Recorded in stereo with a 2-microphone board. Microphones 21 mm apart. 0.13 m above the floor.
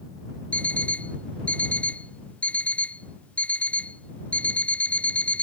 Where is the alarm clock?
80° left.